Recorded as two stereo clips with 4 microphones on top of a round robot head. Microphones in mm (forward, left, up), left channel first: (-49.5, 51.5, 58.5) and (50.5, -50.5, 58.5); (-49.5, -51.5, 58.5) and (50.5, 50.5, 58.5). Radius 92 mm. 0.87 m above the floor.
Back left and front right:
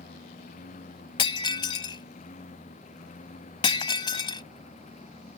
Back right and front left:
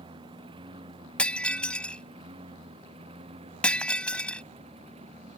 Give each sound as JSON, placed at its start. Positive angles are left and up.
{"t": 0.0, "sound": "a lawn mower", "azimuth_deg": 100}
{"t": 1.2, "sound": "breaking glass", "azimuth_deg": 150}